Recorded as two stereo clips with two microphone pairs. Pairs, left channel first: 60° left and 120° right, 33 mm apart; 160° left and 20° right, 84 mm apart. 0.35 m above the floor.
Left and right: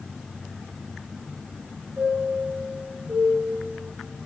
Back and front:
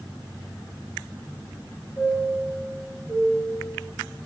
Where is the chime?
135° right, 2 m.